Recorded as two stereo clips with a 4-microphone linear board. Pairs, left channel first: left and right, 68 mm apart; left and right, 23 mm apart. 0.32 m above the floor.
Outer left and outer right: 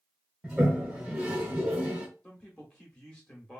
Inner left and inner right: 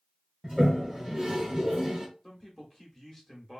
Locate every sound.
0.4 s a toilet flushing: 20° right (ahead or behind), 0.8 m
2.2 s a man speaking: 10° left (ahead or behind), 1.0 m